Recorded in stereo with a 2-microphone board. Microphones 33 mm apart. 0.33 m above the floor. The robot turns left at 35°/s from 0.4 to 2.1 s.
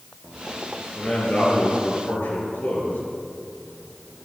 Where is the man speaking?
135° left, 5.5 m; by 3.0 s 95° left, 5.5 m.